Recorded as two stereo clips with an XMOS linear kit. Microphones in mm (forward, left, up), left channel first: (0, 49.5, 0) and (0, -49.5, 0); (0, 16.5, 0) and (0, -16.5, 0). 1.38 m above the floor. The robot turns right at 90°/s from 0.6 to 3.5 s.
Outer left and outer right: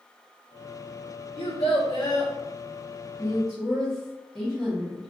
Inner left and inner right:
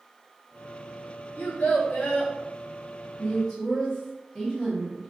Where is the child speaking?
70° left, 1.0 m; by 2.3 s 155° left, 1.0 m.